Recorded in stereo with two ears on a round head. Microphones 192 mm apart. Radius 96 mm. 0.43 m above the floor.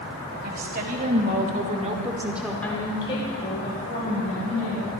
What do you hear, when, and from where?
0.4 s a woman speaking: 45° right (ahead or behind), 2.5 m; by 4.8 s 40° left (ahead or behind), 3.5 m